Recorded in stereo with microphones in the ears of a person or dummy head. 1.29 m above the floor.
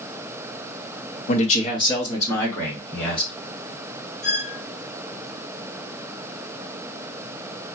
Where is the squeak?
15° right (ahead or behind), 1.7 m.